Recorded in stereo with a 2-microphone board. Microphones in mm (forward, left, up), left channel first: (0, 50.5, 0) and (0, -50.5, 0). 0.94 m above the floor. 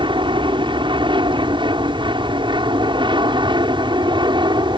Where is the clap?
No clap in this recording.